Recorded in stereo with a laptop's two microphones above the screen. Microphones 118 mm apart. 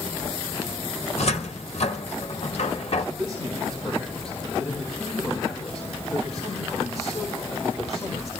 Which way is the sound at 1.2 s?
60° left (ahead or behind).